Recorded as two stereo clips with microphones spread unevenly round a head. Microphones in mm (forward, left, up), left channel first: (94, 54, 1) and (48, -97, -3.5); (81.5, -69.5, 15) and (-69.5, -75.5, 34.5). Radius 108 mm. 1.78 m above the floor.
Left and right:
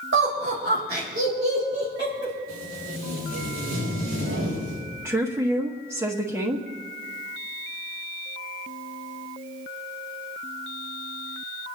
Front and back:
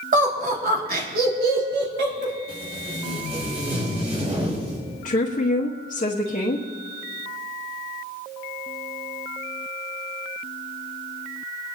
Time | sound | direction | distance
0.1 | laughter | 145° right | 2.5 m
2.5 | tape being pulled | 130° right | 5 m
5.0 | a woman speaking | 30° right | 1.5 m